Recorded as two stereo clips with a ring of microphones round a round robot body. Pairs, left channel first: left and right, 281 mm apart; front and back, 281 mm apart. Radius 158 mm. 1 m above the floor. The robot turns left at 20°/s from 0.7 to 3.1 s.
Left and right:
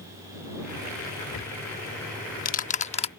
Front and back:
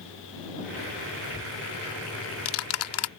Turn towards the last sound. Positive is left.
turn(degrees=25)